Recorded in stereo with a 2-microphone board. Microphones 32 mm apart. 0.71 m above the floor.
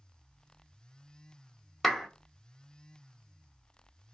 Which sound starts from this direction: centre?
A clap, at 1.8 s.